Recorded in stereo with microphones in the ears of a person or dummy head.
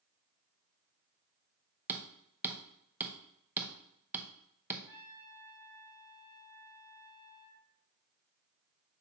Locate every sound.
1.9 s hammering: 15° right (ahead or behind), 0.9 m
4.9 s a trumpet: 20° left (ahead or behind), 3 m